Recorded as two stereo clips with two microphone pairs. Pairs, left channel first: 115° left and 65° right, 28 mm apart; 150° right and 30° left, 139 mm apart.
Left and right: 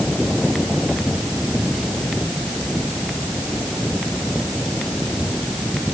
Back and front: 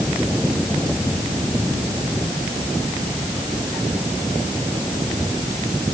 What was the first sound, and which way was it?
Only background noise.